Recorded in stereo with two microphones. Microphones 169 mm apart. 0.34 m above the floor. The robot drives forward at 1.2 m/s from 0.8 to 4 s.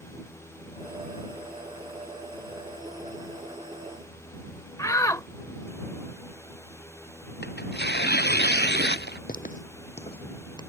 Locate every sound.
4.8 s a shout: 20° left (ahead or behind)
7.4 s tearing paper: 80° left
9.3 s footsteps: 60° left (ahead or behind); by 10.6 s 25° left (ahead or behind)